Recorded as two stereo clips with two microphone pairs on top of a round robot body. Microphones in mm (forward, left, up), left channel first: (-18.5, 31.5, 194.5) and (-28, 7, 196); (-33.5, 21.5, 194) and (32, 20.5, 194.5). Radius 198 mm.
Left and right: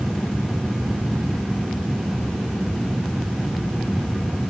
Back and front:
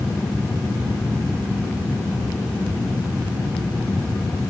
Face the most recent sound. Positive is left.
No sound to turn to.